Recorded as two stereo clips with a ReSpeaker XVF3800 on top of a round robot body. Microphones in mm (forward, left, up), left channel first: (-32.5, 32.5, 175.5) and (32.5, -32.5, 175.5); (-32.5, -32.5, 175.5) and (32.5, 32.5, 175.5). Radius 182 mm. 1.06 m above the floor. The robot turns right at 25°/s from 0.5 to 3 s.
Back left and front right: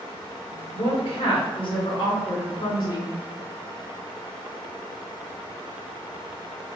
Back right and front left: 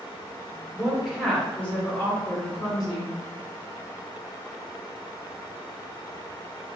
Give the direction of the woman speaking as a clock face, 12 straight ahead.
8 o'clock.